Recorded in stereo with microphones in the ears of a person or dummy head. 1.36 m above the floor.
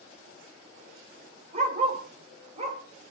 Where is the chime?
I don't hear a chime.